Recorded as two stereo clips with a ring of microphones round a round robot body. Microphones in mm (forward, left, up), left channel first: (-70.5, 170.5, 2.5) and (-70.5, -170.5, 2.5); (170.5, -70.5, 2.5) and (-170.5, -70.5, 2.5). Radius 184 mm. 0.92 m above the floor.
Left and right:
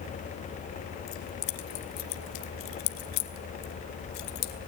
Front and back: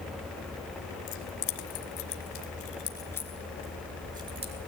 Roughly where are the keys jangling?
Ahead left.